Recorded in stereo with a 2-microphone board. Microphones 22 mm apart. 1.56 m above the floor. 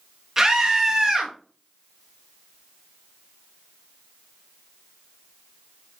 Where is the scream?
20° right (ahead or behind), 1.8 m.